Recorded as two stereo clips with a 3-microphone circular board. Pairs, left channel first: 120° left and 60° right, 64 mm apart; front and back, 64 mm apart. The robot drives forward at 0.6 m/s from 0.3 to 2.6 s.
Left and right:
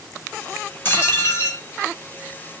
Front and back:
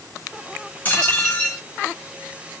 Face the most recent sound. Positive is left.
turn(degrees=95)